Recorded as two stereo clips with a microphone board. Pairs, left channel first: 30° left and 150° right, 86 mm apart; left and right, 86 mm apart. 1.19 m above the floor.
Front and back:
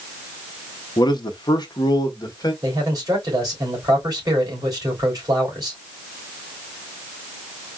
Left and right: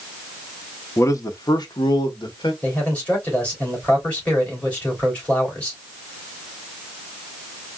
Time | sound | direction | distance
1.0 | a man speaking | 40° left | 0.7 m
2.6 | a man speaking | 160° left | 3.5 m